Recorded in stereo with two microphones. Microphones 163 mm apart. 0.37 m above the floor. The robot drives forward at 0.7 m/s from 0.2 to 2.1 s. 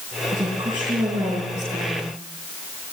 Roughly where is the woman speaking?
Right.